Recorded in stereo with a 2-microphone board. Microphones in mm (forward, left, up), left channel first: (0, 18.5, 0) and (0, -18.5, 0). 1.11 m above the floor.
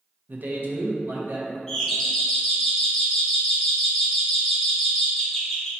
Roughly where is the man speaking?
Right.